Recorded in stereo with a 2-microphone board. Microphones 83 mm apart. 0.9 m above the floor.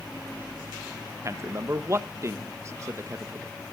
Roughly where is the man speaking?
Right.